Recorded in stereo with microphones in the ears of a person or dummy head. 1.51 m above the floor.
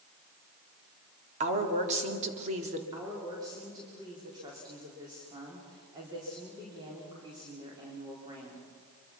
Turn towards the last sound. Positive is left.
turn(degrees=-25)  # may be behind; listen again after turning